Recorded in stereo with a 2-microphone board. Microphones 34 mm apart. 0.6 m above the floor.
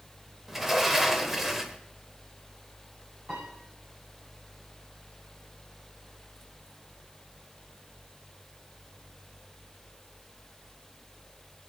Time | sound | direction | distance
0.5 | a sliding door | 10° right (ahead or behind) | 1.0 m
3.3 | a piano | 45° right (ahead or behind) | 9 m